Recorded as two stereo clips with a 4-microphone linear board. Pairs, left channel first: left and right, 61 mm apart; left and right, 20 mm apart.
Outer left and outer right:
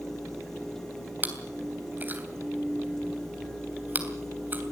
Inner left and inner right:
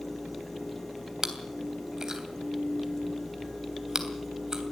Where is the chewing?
30° right (ahead or behind), 3 m.